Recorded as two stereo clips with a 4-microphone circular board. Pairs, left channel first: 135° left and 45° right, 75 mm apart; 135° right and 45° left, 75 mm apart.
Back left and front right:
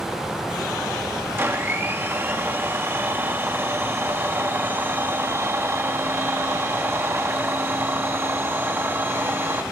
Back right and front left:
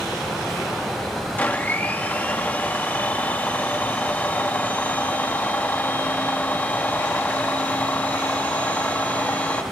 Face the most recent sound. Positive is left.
turn(degrees=-80)